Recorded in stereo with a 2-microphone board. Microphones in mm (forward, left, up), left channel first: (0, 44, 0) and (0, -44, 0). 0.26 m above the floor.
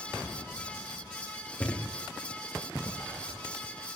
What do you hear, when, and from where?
1.6 s a thud: 15° left (ahead or behind), 5 m